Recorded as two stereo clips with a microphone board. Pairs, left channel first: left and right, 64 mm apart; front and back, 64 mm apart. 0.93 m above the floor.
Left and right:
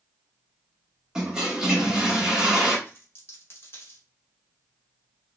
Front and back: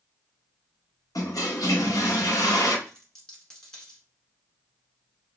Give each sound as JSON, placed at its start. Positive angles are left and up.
{"t": 1.1, "sound": "a toilet flushing", "azimuth_deg": -10, "distance_m": 0.8}
{"t": 2.9, "sound": "a dropped coin", "azimuth_deg": 75, "distance_m": 1.1}